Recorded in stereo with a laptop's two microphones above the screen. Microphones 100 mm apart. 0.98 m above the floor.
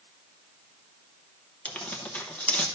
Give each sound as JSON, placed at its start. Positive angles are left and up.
{"t": 1.6, "sound": "tearing paper", "side_deg": 15, "distance_m": 0.7}